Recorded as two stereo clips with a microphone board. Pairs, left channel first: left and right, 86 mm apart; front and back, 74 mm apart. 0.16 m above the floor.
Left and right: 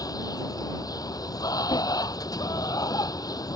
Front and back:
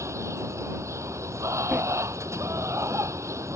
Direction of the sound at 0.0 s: 130° left.